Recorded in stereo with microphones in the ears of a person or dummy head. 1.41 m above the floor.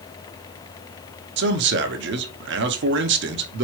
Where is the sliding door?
No sliding door in this recording.